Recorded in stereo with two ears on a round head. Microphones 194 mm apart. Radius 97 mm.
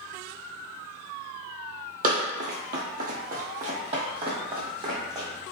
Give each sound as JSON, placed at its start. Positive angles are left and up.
{"t": 2.0, "sound": "running footsteps", "side_deg": -40, "distance_m": 0.8}